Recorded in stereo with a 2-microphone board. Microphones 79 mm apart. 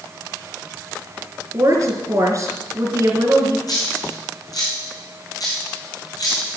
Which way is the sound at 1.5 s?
45° right (ahead or behind).